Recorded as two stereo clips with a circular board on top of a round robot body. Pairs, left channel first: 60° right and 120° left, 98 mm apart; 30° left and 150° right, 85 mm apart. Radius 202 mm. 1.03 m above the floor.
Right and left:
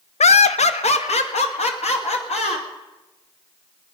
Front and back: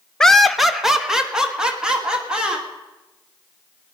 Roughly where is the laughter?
Ahead right.